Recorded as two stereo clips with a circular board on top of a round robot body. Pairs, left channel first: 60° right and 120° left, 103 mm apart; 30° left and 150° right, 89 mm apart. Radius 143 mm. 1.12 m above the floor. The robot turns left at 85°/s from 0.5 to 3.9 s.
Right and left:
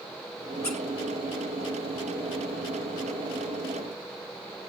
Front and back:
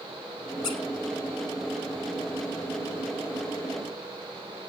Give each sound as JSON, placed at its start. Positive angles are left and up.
{"t": 0.6, "sound": "a squeak", "azimuth_deg": -5, "distance_m": 1.5}